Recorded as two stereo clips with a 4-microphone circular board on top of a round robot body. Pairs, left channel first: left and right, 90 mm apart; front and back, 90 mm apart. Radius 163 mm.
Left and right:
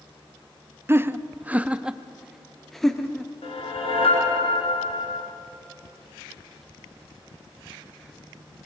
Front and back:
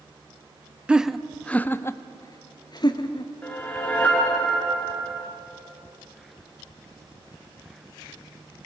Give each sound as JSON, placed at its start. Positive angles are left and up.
{"t": 0.9, "sound": "laughter", "azimuth_deg": -115, "distance_m": 0.9}
{"t": 3.4, "sound": "a whoosh", "azimuth_deg": 75, "distance_m": 3.0}